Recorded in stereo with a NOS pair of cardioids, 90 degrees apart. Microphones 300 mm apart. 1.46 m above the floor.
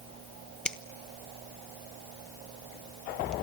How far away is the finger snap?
About 1.1 m.